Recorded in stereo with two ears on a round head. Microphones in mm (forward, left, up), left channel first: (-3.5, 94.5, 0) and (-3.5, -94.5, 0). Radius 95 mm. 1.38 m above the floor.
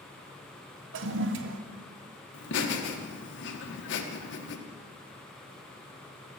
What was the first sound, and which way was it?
A toilet flushing, 60° right (ahead or behind).